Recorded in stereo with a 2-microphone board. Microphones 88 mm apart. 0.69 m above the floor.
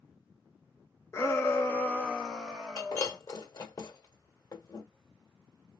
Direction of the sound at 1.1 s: 30° left (ahead or behind).